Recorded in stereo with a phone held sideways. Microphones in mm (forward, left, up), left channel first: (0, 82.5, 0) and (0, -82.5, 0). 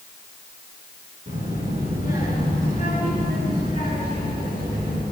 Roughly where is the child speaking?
Right.